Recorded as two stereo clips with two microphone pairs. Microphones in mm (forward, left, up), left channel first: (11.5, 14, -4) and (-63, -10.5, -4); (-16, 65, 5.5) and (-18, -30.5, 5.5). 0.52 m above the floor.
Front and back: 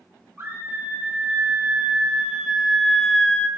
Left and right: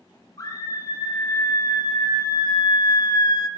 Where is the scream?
140° left, 3 m; by 3.5 s 85° left, 1.1 m.